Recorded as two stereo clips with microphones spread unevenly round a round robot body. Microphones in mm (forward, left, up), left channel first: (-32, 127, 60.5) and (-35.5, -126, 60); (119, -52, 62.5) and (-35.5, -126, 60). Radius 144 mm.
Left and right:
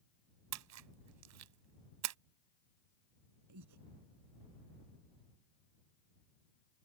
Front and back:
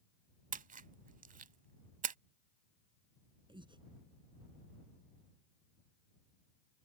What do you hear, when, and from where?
0.5 s a splash: 110° right
3.5 s breathing: 95° right